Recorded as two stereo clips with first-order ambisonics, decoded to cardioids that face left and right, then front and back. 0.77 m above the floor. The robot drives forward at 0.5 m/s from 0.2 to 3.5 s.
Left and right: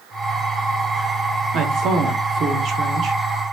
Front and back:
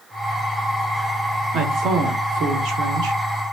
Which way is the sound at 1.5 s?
130° right.